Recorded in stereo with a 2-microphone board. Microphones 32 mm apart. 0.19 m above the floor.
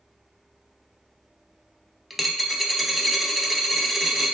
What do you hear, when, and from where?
2.1 s a dropped coin: centre (ahead or behind), 0.6 m